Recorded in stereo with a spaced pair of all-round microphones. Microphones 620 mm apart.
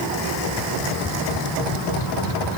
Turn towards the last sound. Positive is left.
No sound to turn to.